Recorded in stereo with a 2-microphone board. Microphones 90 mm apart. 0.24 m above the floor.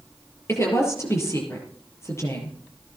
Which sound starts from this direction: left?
A woman speaking, at 0.5 s.